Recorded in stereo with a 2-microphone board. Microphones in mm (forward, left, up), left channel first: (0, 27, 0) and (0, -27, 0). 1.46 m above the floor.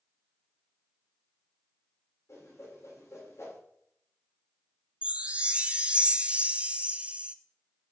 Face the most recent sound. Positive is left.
turn(degrees=-20)  # may be behind; listen again after turning